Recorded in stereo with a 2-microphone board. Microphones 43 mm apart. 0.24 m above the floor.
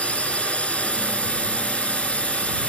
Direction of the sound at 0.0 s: 30° left (ahead or behind).